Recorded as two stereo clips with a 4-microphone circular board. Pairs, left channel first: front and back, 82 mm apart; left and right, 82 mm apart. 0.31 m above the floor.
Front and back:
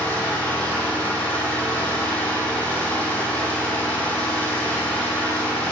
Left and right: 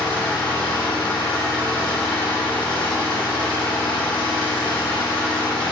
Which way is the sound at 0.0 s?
70° left.